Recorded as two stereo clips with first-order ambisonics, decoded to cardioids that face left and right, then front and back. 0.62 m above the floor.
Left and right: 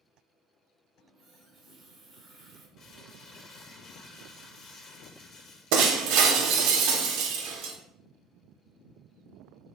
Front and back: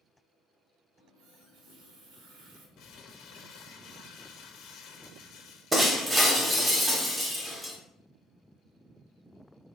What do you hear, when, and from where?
1.0 s a running tap: 165° right, 1.0 m
2.8 s crumpling: 35° left, 0.6 m
5.7 s breaking glass: 105° right, 0.6 m